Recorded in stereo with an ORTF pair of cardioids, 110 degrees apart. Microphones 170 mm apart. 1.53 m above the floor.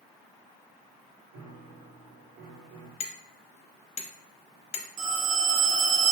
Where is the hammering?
45° left, 0.7 m.